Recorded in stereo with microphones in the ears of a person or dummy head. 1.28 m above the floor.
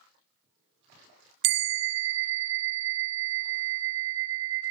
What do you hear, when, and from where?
1.4 s a bell: 65° right (ahead or behind), 0.5 m